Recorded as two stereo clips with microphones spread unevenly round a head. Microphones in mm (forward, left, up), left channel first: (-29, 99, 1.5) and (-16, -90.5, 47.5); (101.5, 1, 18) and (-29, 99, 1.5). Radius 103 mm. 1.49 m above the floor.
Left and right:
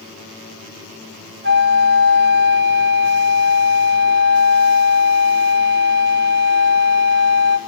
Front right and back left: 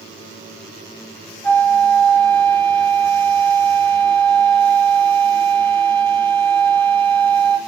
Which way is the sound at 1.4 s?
120° right.